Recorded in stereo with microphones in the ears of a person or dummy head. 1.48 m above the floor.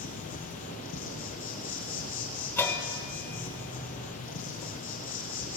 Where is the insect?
35° left (ahead or behind), 1.2 m.